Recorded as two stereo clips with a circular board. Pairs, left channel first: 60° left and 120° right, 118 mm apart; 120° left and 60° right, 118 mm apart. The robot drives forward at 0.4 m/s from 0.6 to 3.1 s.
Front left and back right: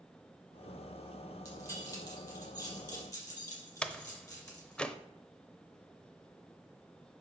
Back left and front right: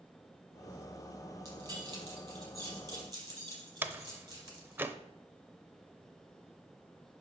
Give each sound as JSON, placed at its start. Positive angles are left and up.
{"t": 1.4, "sound": "keys jangling", "azimuth_deg": 0, "distance_m": 5.5}
{"t": 3.8, "sound": "a door slam", "azimuth_deg": -10, "distance_m": 0.6}